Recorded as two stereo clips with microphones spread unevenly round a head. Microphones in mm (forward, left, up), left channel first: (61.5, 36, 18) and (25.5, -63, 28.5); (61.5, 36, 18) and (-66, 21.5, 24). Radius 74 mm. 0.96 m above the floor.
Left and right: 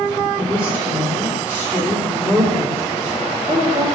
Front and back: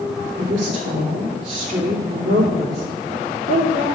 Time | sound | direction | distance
0.4 | a woman speaking | 150° left | 3 m